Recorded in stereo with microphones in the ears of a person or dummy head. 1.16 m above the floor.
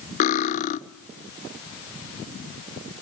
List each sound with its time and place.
0.2 s cutlery clinking: 45° left (ahead or behind), 0.7 m